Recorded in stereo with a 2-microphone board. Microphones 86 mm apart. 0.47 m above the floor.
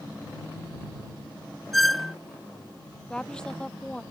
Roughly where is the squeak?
Centre.